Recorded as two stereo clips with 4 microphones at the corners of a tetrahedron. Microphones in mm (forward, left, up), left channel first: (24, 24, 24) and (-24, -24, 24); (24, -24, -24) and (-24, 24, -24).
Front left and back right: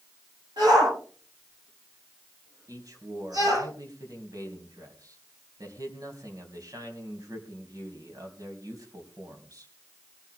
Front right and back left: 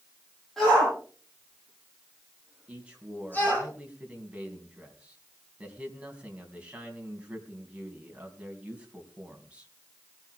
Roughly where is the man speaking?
Behind right.